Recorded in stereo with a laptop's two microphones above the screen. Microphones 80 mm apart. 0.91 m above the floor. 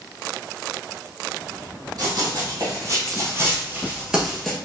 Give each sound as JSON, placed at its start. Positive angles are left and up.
{"t": 2.0, "sound": "running footsteps", "side_deg": -55, "distance_m": 1.9}